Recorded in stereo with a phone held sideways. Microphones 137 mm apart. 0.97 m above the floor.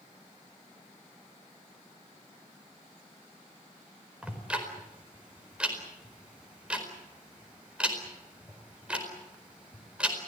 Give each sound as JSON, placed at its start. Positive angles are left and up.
{"t": 4.2, "sound": "ticking", "side_deg": -5, "distance_m": 4.5}